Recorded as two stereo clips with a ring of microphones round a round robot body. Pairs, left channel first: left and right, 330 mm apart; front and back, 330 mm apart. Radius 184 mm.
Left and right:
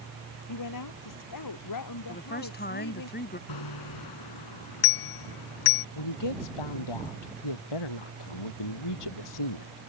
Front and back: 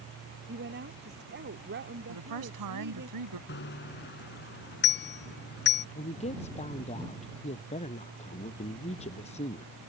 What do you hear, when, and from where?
0.5 s a woman speaking: 115° left
2.1 s a woman speaking: 150° left
3.5 s a bicycle bell: 60° left
6.0 s a woman speaking: 75° left